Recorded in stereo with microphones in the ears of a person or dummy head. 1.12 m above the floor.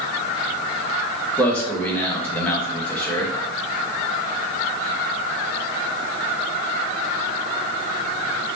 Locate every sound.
1.4 s a man speaking: 10° left (ahead or behind), 1.2 m